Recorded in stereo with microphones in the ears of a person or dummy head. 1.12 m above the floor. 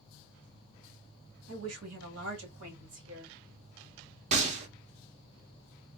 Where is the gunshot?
35° right (ahead or behind), 0.6 m.